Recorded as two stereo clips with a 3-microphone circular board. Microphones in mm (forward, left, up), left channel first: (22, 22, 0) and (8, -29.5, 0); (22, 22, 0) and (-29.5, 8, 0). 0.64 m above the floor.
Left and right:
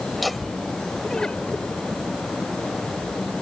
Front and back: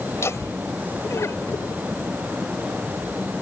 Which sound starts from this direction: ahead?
Laughter, at 0.1 s.